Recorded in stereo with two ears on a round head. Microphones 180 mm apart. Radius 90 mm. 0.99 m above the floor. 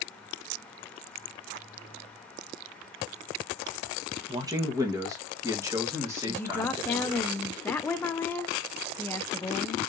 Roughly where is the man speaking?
Centre.